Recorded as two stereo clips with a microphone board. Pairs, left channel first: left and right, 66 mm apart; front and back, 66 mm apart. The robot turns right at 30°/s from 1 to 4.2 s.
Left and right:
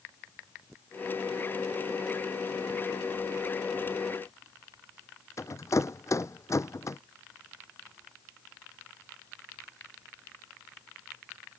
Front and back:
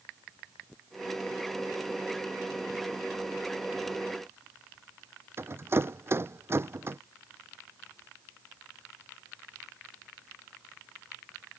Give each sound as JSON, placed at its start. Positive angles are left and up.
{"t": 5.4, "sound": "a rattle", "azimuth_deg": 130}